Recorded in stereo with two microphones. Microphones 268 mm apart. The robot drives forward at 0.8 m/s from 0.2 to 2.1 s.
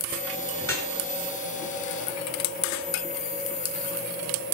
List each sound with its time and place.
0.6 s dripping: 50° left (ahead or behind), 8.5 m